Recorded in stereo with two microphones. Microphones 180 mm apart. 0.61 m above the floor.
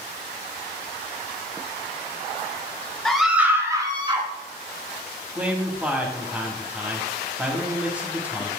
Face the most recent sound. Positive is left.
turn(degrees=-10)  # may be behind; listen again after turning